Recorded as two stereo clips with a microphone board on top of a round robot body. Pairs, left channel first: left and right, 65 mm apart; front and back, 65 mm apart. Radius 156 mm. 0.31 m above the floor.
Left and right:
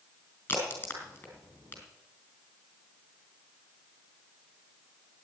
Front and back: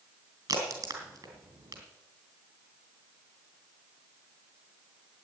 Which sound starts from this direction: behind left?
A crack, at 0.5 s.